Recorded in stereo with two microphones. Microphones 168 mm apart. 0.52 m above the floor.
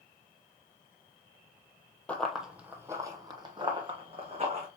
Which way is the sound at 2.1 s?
10° left (ahead or behind).